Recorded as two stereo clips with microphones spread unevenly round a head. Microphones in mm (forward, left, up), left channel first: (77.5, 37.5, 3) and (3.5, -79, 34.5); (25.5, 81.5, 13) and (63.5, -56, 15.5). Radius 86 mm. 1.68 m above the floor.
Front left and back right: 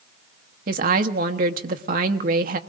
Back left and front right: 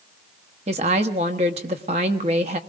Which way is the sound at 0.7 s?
130° right.